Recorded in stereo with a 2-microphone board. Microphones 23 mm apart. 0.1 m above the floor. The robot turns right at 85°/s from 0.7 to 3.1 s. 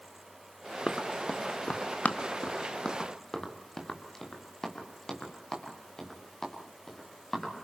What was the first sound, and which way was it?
Running footsteps, 15° left (ahead or behind).